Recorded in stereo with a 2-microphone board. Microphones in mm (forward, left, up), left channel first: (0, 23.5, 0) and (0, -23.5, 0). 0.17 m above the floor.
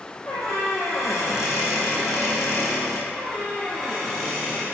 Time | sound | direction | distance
0.3 | a squeak | 85° left | 1.6 m
3.1 | a squeak | 5° left (ahead or behind) | 2.5 m